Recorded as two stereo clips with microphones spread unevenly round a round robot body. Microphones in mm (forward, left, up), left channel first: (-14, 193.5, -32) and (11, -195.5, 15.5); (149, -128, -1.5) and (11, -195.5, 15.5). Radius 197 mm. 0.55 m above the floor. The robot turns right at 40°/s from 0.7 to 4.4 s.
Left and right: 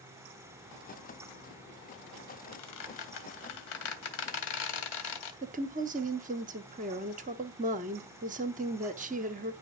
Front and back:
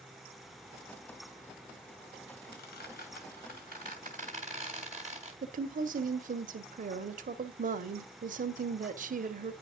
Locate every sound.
2.5 s a squeak: 40° left, 2 m; by 5.3 s 115° left, 2 m
5.4 s a woman speaking: 160° right, 0.9 m